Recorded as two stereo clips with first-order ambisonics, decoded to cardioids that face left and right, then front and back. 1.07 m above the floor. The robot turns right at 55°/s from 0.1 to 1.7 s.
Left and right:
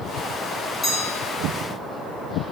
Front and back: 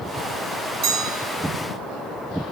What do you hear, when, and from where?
0.8 s a bell: 160° left, 0.8 m; by 1.2 s 175° right, 0.8 m